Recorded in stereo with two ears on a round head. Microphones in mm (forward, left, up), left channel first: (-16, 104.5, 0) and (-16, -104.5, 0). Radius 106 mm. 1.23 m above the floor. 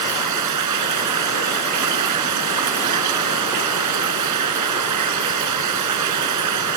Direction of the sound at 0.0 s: 90° right.